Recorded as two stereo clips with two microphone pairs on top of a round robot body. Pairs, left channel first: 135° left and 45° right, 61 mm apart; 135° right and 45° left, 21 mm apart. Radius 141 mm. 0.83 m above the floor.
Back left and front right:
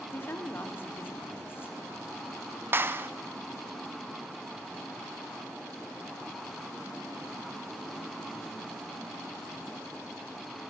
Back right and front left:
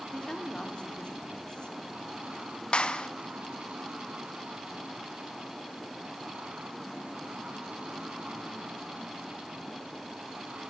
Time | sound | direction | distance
0.1 | a woman speaking | 175° right | 2.5 m
2.7 | a clap | 105° right | 0.8 m